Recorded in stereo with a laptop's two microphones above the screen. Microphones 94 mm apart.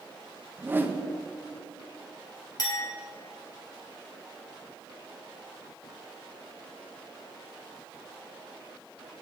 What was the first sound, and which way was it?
A whoosh, 20° right (ahead or behind).